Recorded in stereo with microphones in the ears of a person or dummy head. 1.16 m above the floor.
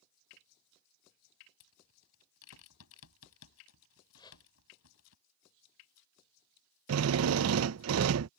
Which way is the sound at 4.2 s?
25° left (ahead or behind).